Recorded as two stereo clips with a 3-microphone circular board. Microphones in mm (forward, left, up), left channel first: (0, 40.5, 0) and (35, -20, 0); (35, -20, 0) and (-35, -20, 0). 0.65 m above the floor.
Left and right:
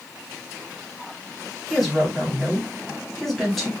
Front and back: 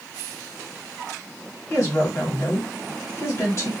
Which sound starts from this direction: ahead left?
A woman speaking, at 1.7 s.